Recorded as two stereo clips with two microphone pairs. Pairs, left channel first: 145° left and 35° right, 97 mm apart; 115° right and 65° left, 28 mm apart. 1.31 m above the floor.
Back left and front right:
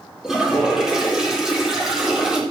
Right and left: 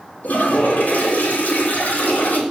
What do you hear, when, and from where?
0.2 s a toilet flushing: 120° right, 4 m